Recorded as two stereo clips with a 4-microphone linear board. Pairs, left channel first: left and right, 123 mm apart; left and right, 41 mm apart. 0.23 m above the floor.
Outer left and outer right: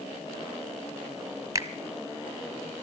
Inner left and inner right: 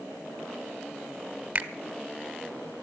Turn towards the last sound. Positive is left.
turn(degrees=-30)  # may be behind; listen again after turning